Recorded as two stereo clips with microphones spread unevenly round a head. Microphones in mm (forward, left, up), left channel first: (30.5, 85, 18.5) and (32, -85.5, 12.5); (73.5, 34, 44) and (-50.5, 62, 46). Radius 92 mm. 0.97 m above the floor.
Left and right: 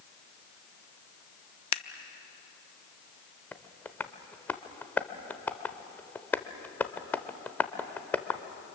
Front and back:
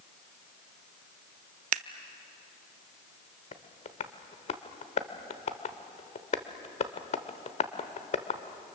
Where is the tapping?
15° left, 1.0 m.